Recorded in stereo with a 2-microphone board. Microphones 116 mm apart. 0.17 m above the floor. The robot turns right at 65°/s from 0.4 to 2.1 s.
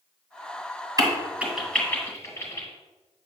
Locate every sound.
1.0 s a crack: 30° right (ahead or behind), 2.5 m; by 2.7 s 25° left (ahead or behind), 2.5 m